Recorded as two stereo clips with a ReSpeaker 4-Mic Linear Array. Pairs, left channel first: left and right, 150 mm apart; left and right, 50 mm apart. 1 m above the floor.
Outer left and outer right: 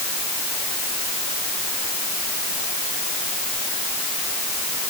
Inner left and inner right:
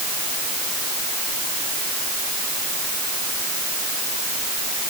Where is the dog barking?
I don't hear a dog barking.